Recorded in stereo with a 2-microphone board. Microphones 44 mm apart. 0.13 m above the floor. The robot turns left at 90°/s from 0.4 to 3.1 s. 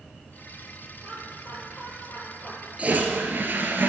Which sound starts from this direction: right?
A toilet flushing, at 2.8 s.